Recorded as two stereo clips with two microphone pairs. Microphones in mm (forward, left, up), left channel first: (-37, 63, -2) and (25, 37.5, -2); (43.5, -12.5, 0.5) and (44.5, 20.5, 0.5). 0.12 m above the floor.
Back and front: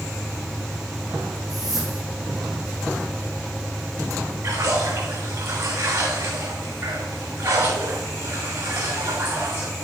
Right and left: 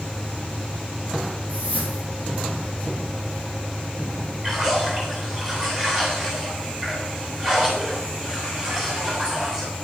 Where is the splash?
30° left, 3 m.